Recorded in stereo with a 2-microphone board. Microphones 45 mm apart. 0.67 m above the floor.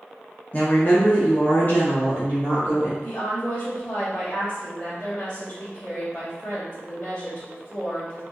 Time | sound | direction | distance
0.5 | a woman speaking | 30° left (ahead or behind) | 0.8 m
3.0 | a woman speaking | 35° left (ahead or behind) | 1.6 m